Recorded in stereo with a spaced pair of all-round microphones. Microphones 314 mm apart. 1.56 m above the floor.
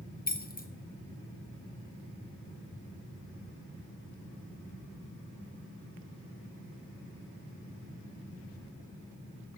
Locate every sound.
0.3 s keys jangling: 30° left (ahead or behind), 0.7 m